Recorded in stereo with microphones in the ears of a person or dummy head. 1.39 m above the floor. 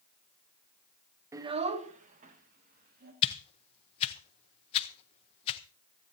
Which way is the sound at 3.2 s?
35° left (ahead or behind).